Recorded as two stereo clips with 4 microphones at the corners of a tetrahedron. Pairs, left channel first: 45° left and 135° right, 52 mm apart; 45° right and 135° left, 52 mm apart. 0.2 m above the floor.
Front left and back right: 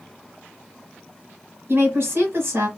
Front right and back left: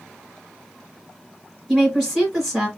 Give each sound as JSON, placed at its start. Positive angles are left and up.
{"t": 1.7, "sound": "a woman speaking", "azimuth_deg": -140, "distance_m": 1.9}